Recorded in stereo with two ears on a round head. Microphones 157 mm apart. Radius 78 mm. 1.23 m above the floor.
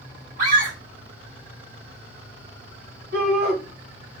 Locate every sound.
0.4 s a scream: 85° right, 3 m
3.1 s a shout: 70° right (ahead or behind), 2.5 m